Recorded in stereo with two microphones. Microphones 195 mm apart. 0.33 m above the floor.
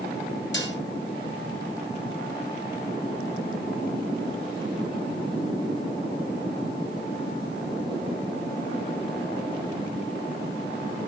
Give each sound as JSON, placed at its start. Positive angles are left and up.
{"t": 0.5, "sound": "dishes clattering", "side_deg": 70, "distance_m": 2.5}